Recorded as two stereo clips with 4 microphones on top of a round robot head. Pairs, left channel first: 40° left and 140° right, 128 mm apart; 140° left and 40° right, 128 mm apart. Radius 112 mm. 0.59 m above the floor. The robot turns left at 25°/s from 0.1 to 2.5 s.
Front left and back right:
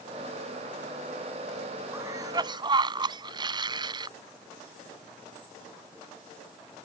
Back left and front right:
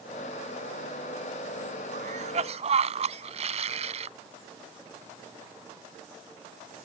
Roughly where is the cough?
Right.